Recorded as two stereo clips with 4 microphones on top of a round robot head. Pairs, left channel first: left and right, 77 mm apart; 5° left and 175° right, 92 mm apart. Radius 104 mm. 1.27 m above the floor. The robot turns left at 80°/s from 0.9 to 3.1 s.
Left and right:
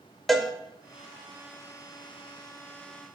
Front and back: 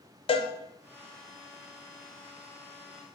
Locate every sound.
0.3 s a cowbell: straight ahead, 1.0 m